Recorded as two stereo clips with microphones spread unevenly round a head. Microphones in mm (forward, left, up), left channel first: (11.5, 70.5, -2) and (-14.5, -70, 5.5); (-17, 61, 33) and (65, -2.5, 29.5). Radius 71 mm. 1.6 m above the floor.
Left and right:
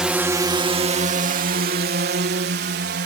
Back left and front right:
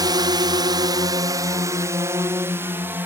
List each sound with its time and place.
0.0 s a drone: 15° right; by 3.1 s 110° right